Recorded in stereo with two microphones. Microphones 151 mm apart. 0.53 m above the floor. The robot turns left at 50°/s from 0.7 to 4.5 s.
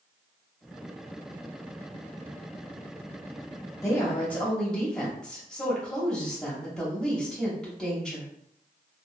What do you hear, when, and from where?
3.8 s a woman speaking: 20° left (ahead or behind), 0.9 m; by 8.3 s 5° left (ahead or behind), 0.9 m